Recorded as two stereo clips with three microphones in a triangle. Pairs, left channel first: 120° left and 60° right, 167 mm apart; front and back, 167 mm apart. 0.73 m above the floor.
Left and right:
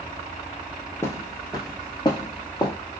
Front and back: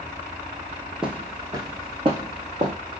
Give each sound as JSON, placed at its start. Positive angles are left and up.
{"t": 1.0, "sound": "footsteps", "azimuth_deg": 105, "distance_m": 0.7}